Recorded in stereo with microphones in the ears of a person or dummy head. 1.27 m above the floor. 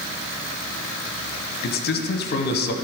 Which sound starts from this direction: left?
A man speaking, at 1.6 s.